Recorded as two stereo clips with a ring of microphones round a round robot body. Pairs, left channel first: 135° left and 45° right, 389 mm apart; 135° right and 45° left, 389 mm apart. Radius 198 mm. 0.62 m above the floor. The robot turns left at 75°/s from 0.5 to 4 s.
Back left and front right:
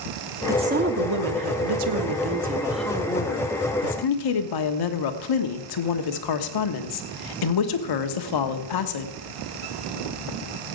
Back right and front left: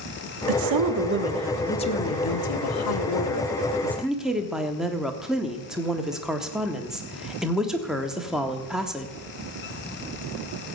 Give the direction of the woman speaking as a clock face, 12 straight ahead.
11 o'clock.